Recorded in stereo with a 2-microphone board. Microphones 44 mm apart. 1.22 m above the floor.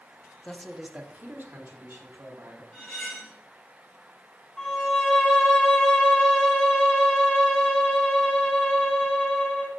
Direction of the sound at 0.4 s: 20° left (ahead or behind).